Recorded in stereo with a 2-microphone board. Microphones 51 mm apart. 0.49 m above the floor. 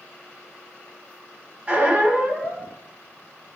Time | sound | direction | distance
1.7 | a squeak | 30° right (ahead or behind) | 0.7 m